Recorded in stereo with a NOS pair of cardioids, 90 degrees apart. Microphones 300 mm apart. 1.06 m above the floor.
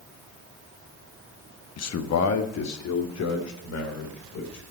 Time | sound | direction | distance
1.8 | a man speaking | 55° left | 1.0 m